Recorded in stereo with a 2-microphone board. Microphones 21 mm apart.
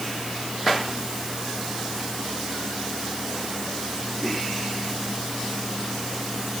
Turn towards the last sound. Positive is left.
No sound to turn to.